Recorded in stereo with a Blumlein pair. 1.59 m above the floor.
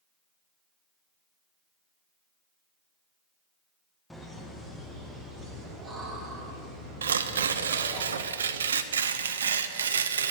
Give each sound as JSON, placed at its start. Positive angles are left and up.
{"t": 4.1, "sound": "laughter", "azimuth_deg": 5, "distance_m": 2.0}
{"t": 7.0, "sound": "tearing paper", "azimuth_deg": -65, "distance_m": 0.5}